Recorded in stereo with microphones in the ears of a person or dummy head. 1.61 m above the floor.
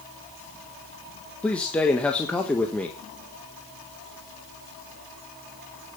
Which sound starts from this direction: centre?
A man speaking, at 1.4 s.